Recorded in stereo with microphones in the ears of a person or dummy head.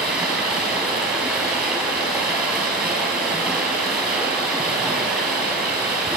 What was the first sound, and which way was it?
Running water, 5° right (ahead or behind).